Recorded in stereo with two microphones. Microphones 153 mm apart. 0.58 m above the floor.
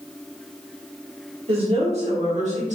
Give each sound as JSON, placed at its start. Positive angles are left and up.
{"t": 1.5, "sound": "a woman speaking", "side_deg": -40, "distance_m": 1.2}